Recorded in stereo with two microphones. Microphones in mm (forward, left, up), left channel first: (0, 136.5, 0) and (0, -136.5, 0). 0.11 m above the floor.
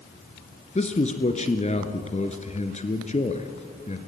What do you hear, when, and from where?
0.8 s a man speaking: 25° left (ahead or behind), 1.6 m